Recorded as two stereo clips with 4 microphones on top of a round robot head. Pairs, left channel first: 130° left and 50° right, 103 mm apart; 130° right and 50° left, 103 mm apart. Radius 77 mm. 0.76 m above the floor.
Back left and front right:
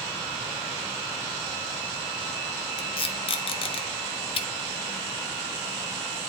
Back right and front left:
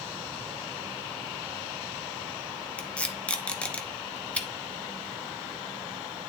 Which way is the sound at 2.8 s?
155° left.